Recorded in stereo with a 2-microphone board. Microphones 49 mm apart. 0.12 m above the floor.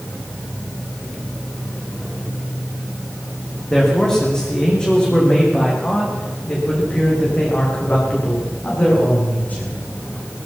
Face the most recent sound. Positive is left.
turn(degrees=35)  # may be behind; listen again after turning